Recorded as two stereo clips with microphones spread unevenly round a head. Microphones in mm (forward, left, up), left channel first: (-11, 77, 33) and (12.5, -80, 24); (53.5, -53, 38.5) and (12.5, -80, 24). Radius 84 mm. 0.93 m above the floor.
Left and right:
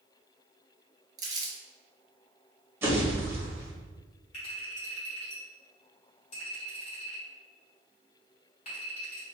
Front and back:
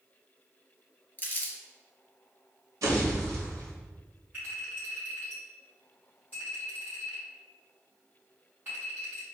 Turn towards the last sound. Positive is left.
turn(degrees=150)